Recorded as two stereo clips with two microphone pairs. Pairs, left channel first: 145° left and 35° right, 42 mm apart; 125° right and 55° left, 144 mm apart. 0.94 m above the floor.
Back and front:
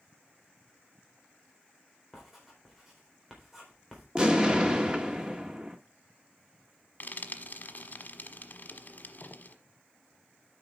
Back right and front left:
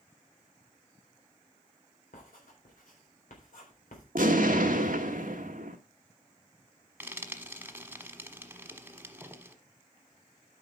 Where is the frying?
130° left, 1.1 m.